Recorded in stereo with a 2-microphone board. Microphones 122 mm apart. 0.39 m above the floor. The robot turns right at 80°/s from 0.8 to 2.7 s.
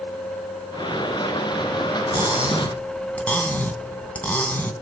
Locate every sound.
2.1 s cutlery clinking: 35° right, 2.5 m; by 4.7 s 15° left, 2.5 m